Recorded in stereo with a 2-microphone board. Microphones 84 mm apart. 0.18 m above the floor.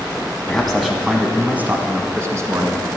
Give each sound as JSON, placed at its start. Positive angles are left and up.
{"t": 0.5, "sound": "a man speaking", "side_deg": 5, "distance_m": 1.4}